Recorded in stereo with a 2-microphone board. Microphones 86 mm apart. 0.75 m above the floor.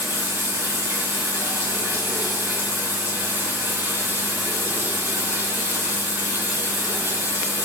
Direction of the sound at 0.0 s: 30° right (ahead or behind).